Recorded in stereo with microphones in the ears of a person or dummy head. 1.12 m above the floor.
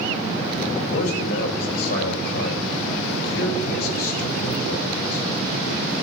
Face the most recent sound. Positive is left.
turn(degrees=85)